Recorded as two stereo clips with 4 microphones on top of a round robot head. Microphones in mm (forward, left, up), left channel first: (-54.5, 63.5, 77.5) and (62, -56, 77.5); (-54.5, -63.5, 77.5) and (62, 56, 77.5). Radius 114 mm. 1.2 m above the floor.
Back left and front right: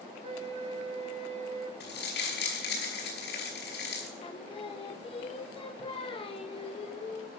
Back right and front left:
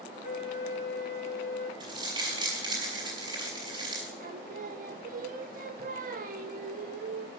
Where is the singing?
80° left, 1.2 m.